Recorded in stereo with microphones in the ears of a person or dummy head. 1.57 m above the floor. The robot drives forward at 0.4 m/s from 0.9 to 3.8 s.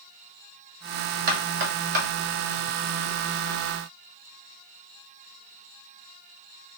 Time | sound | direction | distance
1.3 | knocking | 45° right (ahead or behind) | 1.7 m